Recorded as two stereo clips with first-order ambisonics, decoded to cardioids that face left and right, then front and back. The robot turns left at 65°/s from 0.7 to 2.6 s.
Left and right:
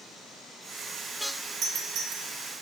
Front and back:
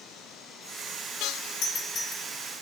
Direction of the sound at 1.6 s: 30° right.